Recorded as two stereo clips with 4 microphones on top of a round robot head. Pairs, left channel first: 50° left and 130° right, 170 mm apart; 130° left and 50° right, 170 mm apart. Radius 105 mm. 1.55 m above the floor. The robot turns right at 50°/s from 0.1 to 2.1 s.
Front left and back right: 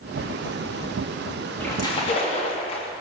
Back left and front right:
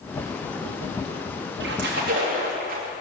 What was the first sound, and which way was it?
A splash, 35° right.